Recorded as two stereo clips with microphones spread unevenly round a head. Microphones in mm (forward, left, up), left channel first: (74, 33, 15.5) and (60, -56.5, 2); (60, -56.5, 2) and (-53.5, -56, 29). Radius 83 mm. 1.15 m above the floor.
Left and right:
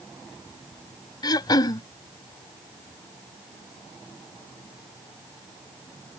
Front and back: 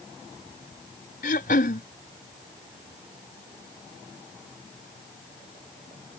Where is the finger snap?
I don't hear a finger snap.